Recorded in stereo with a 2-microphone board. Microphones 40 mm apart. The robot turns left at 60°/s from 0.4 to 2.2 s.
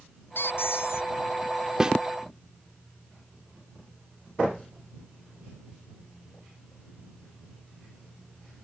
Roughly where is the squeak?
Behind left.